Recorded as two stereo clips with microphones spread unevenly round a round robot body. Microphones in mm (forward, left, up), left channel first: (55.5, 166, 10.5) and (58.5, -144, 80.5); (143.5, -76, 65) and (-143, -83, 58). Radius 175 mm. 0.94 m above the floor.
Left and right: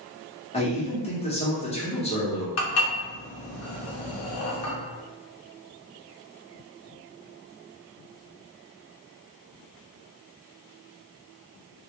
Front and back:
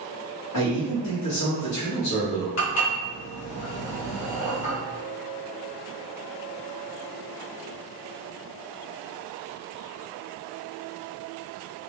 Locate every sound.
0.5 s a man speaking: 25° left, 0.8 m
2.6 s dishes clattering: 50° left, 0.8 m